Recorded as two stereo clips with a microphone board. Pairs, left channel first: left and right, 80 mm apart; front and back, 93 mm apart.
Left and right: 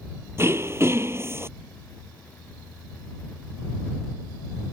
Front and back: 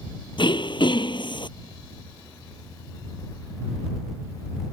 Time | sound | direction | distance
0.4 | throat clearing | 30° right | ?